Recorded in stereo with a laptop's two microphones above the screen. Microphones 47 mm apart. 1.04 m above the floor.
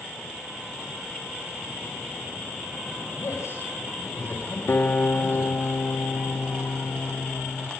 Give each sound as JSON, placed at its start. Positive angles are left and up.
{"t": 3.1, "sound": "a man speaking", "side_deg": 70, "distance_m": 8.0}
{"t": 4.7, "sound": "a guitar", "side_deg": 45, "distance_m": 2.5}